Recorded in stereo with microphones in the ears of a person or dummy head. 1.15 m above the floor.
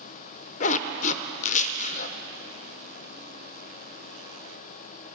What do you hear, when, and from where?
0.6 s a zipper: 35° left (ahead or behind), 0.6 m